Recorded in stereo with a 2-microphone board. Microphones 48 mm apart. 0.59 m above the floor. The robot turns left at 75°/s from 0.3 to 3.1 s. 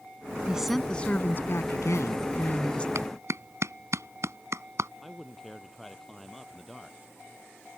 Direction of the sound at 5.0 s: 5° left (ahead or behind).